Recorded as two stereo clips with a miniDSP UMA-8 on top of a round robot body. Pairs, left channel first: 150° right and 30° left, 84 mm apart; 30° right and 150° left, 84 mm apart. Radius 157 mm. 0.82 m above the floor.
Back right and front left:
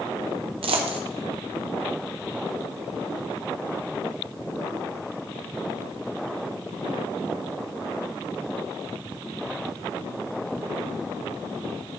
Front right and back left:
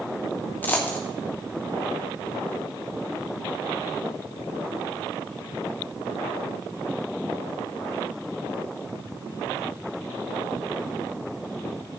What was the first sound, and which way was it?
A dropped coin, 40° left.